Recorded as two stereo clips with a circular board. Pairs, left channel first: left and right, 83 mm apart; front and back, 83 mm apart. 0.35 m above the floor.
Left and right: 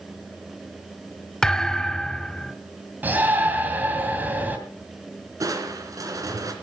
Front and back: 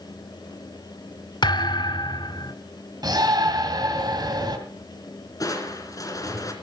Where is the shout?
155° right, 2 m.